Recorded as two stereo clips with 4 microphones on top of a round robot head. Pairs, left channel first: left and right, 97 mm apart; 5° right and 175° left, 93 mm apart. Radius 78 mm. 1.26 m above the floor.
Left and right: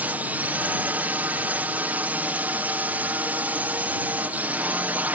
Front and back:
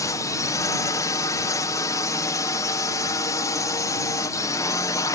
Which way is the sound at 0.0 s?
25° right.